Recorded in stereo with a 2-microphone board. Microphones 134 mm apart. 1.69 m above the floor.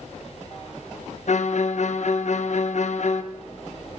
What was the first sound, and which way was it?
A violin, 60° left (ahead or behind).